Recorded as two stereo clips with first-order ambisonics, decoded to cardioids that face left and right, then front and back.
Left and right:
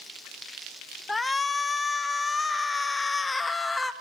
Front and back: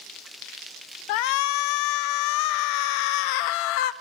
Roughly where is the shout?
Ahead.